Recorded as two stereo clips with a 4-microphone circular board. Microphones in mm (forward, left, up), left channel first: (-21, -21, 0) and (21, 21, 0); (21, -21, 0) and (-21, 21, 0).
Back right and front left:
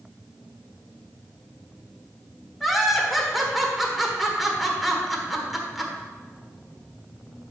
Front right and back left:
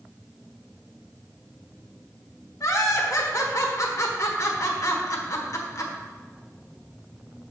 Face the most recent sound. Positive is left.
turn(degrees=-45)